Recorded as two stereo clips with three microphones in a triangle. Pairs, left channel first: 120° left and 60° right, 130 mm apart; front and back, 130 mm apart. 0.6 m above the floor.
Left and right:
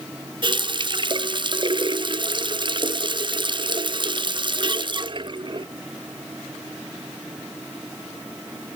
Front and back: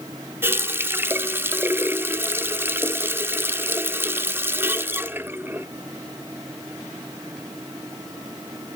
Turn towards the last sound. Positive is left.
turn(degrees=-105)